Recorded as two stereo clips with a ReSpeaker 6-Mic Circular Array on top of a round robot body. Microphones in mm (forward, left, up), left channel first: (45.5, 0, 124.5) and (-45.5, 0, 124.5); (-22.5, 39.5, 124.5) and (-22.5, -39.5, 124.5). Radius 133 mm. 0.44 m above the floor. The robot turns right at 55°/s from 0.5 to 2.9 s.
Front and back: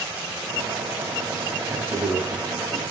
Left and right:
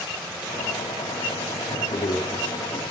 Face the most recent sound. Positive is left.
turn(degrees=165)